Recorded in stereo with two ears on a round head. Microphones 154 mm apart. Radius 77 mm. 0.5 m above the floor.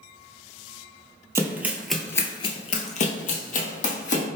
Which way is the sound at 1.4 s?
15° right (ahead or behind).